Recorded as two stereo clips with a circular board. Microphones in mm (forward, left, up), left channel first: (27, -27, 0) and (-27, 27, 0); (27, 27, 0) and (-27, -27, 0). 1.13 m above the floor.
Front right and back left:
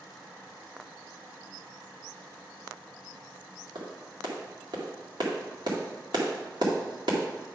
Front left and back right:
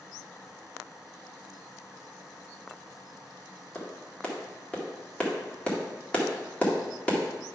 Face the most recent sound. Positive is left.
turn(degrees=120)